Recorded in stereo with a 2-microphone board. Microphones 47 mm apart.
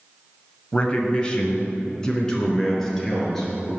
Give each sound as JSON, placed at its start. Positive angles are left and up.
{"t": 0.7, "sound": "a man speaking", "side_deg": 25, "distance_m": 1.4}